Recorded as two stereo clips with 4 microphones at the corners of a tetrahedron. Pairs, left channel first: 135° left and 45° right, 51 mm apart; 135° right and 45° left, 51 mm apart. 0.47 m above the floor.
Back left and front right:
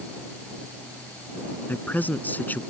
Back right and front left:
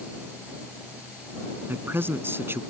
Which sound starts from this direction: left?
A man speaking, at 1.7 s.